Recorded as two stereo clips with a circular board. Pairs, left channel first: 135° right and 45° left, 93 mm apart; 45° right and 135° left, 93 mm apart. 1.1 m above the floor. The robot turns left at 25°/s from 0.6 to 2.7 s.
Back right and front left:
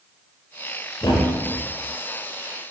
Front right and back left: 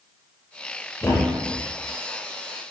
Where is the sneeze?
No sneeze in this recording.